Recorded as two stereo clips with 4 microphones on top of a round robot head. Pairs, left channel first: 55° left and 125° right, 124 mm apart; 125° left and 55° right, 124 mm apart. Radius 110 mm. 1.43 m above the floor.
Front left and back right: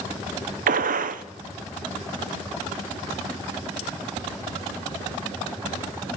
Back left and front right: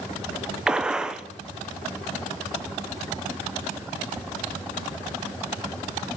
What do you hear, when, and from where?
0.7 s a gunshot: 140° right, 0.6 m